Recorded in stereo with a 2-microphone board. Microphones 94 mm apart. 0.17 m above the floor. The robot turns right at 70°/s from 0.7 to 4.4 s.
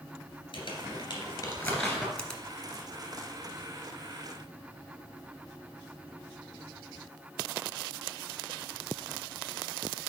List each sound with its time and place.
0.5 s crumpling: 65° left (ahead or behind), 2.5 m; by 2.1 s 10° right (ahead or behind), 2.5 m
2.2 s a finger snap: 15° left (ahead or behind), 1.1 m; by 2.4 s centre (ahead or behind), 1.1 m